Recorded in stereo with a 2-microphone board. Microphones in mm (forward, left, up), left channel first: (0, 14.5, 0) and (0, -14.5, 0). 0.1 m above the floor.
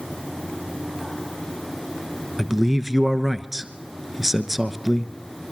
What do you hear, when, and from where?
2.4 s a man speaking: 10° right (ahead or behind), 1.1 m